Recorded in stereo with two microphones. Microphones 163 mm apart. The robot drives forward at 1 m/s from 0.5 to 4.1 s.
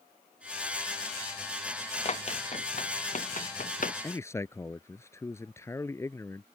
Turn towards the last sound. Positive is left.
turn(degrees=15)  # may be behind; listen again after turning